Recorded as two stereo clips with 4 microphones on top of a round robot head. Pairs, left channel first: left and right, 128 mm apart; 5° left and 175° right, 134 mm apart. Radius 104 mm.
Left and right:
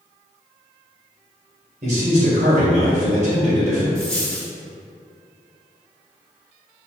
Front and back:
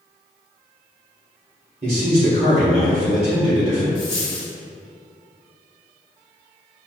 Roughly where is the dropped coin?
Ahead.